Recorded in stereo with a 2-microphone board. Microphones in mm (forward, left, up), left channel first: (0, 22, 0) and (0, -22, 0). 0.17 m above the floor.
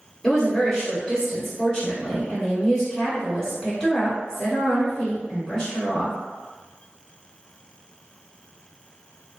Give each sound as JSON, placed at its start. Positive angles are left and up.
{"t": 0.2, "sound": "a woman speaking", "side_deg": 15, "distance_m": 1.9}